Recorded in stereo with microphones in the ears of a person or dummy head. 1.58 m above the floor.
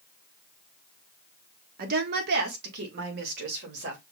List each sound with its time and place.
1.8 s a woman speaking: 55° right (ahead or behind), 1.1 m; by 4.0 s 65° right (ahead or behind), 2.5 m